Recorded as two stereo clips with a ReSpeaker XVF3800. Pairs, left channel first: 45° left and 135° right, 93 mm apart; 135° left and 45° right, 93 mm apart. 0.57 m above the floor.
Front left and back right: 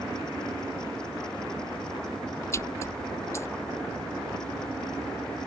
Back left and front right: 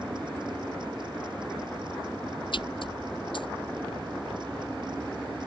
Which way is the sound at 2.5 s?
105° left.